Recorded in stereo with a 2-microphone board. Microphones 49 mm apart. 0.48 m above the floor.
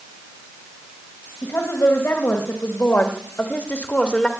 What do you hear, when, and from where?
1.4 s a woman speaking: 70° left (ahead or behind), 3 m; by 4.3 s 20° left (ahead or behind), 1.6 m